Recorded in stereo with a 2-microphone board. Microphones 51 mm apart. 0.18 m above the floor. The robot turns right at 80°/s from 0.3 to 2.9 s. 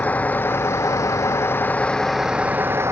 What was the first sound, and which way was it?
A vehicle, 30° left.